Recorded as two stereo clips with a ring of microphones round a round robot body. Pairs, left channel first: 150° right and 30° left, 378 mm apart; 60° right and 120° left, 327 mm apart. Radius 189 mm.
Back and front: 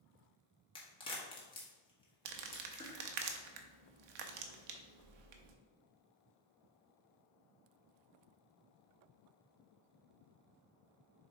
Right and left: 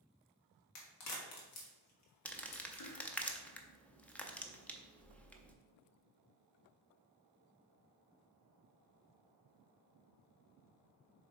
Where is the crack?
75° right, 1.6 m.